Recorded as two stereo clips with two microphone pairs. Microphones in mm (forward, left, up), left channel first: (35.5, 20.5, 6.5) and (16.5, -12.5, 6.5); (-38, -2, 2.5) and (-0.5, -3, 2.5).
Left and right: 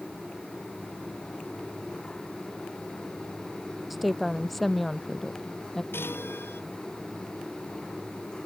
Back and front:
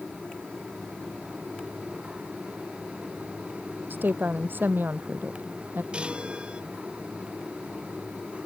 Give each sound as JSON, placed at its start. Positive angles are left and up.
{"t": 3.9, "sound": "a woman speaking", "azimuth_deg": -30}
{"t": 5.9, "sound": "a chime", "azimuth_deg": 60}